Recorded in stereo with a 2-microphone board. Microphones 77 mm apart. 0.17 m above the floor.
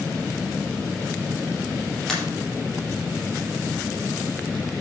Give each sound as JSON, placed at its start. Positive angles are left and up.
{"t": 2.1, "sound": "a pop", "side_deg": 5, "distance_m": 5.0}